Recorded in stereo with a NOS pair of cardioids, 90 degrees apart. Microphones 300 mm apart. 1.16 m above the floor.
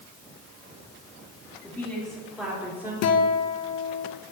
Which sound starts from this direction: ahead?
A woman speaking, at 1.6 s.